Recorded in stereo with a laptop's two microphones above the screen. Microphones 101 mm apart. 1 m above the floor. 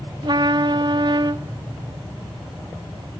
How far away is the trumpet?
About 0.7 m.